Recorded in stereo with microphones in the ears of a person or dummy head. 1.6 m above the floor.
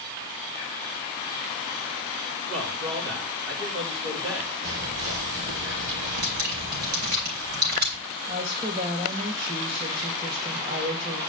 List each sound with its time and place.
2.5 s a man speaking: 60° right (ahead or behind), 3.5 m
4.6 s whispering: 70° right (ahead or behind), 4 m
6.2 s dripping: 50° right (ahead or behind), 3 m
8.3 s a woman speaking: 35° right (ahead or behind), 2.5 m